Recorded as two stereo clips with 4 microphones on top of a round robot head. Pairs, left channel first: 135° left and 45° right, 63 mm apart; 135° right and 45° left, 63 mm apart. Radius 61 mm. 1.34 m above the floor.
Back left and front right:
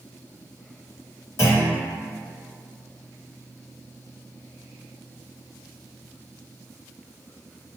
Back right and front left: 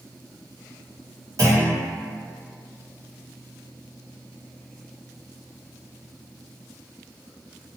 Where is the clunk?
85° left, 1.3 m.